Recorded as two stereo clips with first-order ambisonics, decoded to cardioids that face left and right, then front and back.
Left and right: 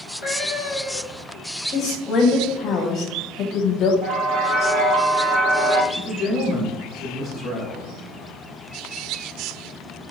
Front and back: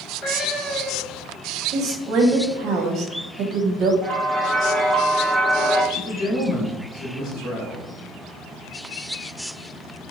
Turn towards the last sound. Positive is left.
turn(degrees=35)